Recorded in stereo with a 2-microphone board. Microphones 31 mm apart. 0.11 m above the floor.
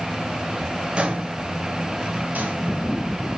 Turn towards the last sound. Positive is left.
turn(degrees=-70)  # may be behind; listen again after turning